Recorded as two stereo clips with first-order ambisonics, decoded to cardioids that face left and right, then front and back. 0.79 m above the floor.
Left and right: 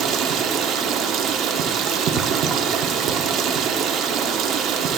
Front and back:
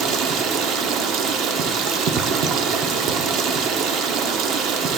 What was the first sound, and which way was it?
Running water, 140° right.